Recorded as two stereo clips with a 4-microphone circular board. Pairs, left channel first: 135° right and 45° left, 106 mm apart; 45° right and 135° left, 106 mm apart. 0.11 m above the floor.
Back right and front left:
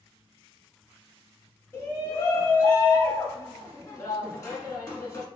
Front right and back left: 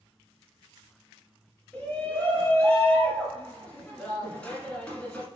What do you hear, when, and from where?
1.7 s a shout: 105° right, 1.6 m